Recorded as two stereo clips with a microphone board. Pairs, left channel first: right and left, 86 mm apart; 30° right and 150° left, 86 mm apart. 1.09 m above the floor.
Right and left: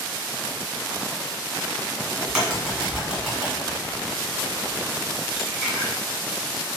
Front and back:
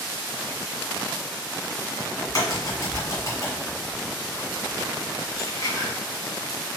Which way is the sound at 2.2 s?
5° left.